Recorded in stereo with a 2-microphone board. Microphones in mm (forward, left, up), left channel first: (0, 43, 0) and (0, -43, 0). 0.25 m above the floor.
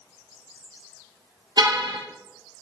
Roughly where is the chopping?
I don't hear chopping.